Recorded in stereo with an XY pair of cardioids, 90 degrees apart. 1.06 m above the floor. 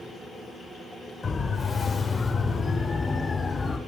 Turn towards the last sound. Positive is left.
turn(degrees=20)